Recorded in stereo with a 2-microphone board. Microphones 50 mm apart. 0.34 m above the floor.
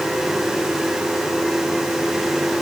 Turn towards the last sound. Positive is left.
No sound to turn to.